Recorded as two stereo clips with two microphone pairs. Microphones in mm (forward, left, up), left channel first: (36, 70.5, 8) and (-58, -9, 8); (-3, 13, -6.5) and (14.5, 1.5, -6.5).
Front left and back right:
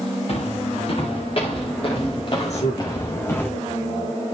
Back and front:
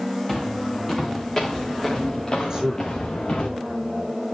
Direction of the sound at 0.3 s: 75° left.